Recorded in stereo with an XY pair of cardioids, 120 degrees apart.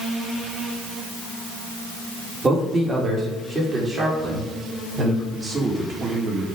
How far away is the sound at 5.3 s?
About 2.5 m.